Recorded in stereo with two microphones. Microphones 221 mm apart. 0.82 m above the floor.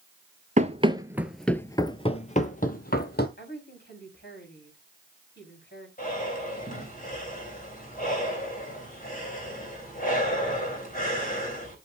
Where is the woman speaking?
50° left (ahead or behind), 5.5 m.